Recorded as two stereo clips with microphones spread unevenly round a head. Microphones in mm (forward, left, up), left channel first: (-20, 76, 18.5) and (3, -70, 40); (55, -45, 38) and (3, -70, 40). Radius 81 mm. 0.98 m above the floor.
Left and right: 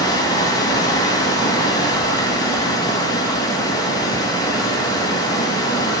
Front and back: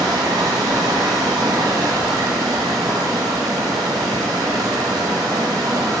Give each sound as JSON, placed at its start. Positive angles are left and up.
{"t": 0.0, "sound": "running water", "azimuth_deg": 165, "distance_m": 2.0}